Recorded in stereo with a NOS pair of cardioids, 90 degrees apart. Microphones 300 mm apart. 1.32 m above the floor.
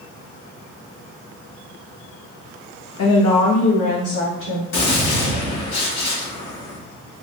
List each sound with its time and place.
3.0 s a woman speaking: 60° left, 0.7 m; by 4.6 s 65° left, 2 m
4.7 s a gunshot: 60° left, 1.4 m